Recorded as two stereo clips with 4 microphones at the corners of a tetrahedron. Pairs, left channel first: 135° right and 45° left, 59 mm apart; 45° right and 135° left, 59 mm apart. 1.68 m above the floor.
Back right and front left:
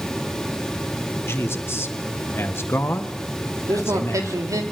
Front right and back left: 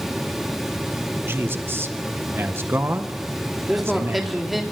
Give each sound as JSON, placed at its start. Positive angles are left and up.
{"t": 1.2, "sound": "a man speaking", "azimuth_deg": -175, "distance_m": 1.6}
{"t": 3.7, "sound": "a man speaking", "azimuth_deg": 50, "distance_m": 3.5}